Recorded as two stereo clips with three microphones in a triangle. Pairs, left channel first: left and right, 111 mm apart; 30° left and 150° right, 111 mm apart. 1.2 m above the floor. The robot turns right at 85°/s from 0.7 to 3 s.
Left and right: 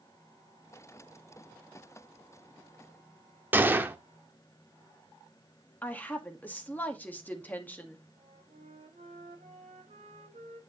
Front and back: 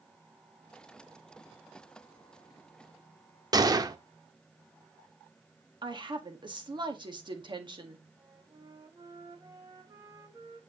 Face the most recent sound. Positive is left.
turn(degrees=-95)